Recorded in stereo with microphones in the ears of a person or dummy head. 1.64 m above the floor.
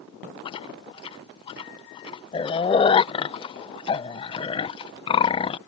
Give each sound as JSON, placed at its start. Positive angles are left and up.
{"t": 0.5, "sound": "chewing", "side_deg": 25}